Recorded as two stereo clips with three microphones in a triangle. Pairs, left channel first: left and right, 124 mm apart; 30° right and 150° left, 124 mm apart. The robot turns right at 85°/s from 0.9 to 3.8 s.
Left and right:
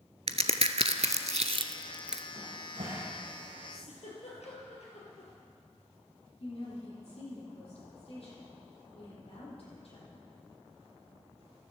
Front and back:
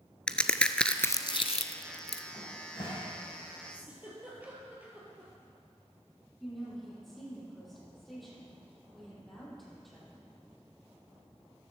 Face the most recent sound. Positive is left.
turn(degrees=60)